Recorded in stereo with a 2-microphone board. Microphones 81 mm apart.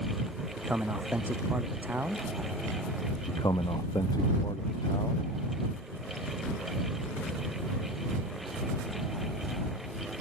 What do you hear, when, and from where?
0.6 s a man speaking: 20° right (ahead or behind)
3.3 s a man speaking: 55° left (ahead or behind)